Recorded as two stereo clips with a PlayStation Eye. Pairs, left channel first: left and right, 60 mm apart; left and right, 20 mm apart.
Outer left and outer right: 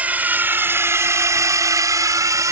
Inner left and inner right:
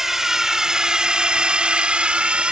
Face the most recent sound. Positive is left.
turn(degrees=-60)  # may be behind; listen again after turning